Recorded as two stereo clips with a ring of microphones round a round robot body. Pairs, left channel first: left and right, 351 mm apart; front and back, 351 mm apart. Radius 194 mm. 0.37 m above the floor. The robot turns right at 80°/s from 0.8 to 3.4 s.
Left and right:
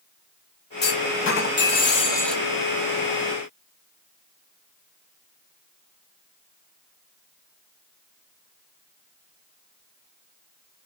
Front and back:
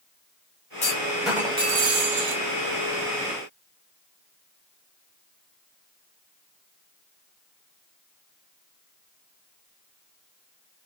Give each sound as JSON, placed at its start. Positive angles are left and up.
{"t": 0.8, "sound": "a clunk", "azimuth_deg": 55, "distance_m": 1.4}